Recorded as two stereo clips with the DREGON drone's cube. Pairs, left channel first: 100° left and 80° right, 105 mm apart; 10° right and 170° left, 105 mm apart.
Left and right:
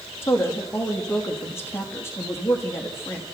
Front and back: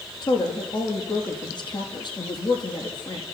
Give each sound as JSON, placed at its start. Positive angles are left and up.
{"t": 0.2, "sound": "a woman speaking", "azimuth_deg": 35, "distance_m": 4.5}